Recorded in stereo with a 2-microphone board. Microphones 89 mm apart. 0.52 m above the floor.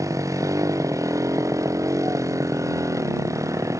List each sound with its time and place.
0.0 s a motorcycle: 35° right (ahead or behind)